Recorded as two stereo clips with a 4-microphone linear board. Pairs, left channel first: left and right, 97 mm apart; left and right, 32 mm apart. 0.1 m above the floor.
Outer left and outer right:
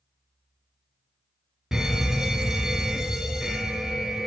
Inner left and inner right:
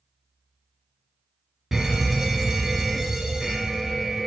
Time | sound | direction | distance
1.7 | a fire alarm | 5° right (ahead or behind) | 2.5 m